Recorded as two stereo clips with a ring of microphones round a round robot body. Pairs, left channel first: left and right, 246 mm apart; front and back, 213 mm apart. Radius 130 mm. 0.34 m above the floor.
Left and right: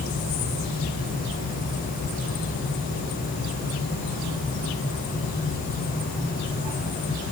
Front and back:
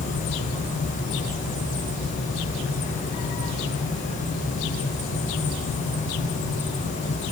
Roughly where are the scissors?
I don't hear scissors.